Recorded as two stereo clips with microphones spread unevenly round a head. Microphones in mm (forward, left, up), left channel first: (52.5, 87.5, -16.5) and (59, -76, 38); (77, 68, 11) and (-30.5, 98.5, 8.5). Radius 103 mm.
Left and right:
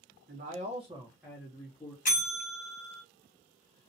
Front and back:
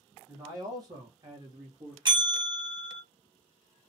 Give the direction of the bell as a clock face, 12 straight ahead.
8 o'clock.